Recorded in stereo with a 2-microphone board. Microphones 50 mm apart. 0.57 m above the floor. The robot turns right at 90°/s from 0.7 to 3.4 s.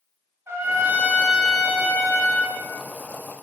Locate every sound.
0.5 s a trumpet: 65° right, 0.6 m; by 2.6 s 100° left, 0.6 m